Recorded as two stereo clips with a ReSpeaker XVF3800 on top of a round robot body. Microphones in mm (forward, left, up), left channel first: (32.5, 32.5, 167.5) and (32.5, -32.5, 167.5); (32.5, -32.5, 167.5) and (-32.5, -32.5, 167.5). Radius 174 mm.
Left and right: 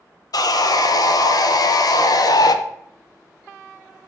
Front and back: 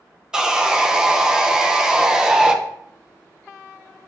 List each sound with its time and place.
0.3 s sawing: 100° left, 0.5 m